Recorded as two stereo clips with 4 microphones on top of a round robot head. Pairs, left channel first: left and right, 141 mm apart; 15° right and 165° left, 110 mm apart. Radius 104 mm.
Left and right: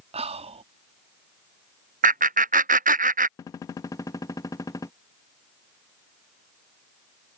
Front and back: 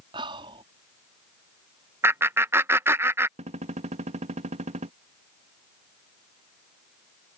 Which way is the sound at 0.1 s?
135° right.